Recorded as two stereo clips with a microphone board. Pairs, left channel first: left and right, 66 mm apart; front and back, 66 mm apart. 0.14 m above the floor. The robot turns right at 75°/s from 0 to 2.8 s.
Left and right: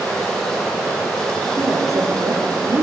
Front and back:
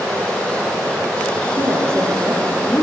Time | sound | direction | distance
1.6 | a woman speaking | 155° right | 4.5 m